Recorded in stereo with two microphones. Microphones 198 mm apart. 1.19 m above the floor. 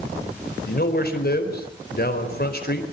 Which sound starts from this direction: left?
A man speaking, at 0.7 s.